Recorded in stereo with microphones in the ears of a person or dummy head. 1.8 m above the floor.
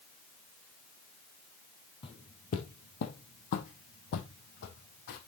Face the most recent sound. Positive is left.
turn(degrees=70)  # may be behind; listen again after turning